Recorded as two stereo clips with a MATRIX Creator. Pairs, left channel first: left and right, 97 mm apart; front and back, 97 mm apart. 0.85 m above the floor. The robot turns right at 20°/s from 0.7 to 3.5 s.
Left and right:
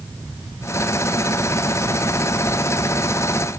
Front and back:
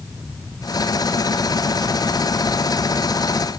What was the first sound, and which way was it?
Only background noise.